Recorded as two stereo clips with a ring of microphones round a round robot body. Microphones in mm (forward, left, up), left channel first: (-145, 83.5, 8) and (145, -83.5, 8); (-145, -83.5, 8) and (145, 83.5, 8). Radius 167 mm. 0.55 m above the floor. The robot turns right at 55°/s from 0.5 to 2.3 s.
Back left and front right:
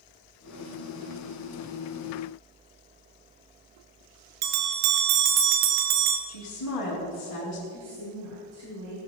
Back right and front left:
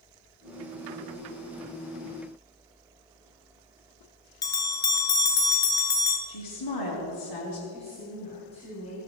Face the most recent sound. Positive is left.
turn(degrees=-75)